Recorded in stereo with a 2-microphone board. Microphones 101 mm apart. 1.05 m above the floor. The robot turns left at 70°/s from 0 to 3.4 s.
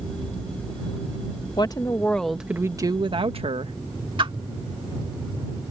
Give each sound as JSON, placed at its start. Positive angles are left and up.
{"t": 1.6, "sound": "a woman speaking", "azimuth_deg": 50}
{"t": 4.2, "sound": "a whoosh", "side_deg": -55}